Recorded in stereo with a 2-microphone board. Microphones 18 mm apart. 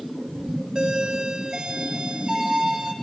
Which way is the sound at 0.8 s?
35° right (ahead or behind).